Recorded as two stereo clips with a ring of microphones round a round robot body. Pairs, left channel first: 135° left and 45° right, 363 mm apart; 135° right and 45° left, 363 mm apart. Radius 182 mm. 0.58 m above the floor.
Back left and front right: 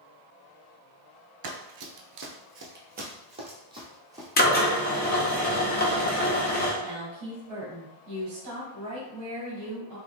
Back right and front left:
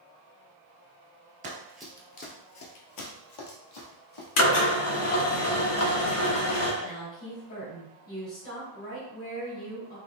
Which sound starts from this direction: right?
A woman speaking, at 6.8 s.